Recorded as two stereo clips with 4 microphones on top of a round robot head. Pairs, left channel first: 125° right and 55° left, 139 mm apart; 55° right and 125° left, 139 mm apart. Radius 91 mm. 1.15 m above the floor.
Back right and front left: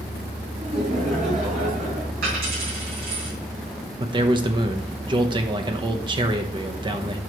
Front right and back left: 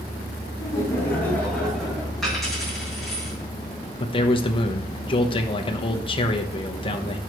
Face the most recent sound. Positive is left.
turn(degrees=0)